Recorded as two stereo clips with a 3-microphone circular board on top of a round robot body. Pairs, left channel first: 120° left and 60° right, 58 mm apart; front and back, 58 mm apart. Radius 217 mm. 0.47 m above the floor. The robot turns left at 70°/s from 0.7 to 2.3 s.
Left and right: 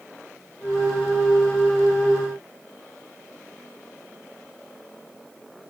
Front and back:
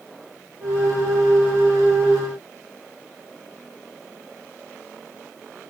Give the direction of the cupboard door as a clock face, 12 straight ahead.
No cupboard door in this recording.